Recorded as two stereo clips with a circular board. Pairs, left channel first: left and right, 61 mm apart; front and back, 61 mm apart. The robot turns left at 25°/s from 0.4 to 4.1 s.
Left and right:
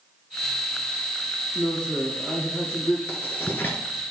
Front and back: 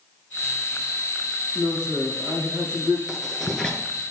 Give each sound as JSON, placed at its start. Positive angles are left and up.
{"t": 1.6, "sound": "a man speaking", "azimuth_deg": 165, "distance_m": 3.0}
{"t": 3.1, "sound": "writing", "azimuth_deg": 90, "distance_m": 1.4}